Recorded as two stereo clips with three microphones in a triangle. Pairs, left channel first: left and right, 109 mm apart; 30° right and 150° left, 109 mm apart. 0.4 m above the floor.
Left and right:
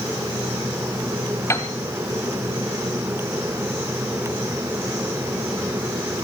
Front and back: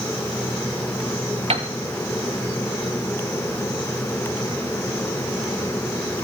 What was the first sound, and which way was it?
A piano, 150° left.